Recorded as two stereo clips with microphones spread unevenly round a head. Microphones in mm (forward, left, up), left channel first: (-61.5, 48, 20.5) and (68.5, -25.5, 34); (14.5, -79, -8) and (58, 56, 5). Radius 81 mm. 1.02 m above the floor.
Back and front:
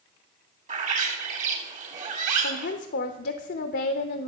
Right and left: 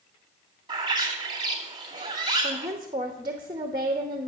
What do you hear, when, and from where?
0.7 s a bird: 10° left, 2 m
2.4 s a woman speaking: 140° left, 0.8 m